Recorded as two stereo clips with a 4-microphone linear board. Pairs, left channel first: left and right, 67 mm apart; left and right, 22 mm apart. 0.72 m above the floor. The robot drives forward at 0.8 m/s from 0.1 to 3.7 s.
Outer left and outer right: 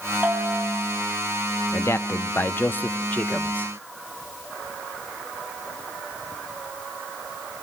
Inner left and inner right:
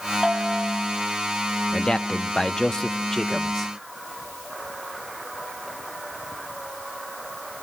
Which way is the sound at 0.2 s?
30° right (ahead or behind).